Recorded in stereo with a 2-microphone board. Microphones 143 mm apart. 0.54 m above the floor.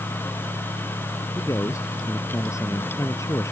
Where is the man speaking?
20° left (ahead or behind).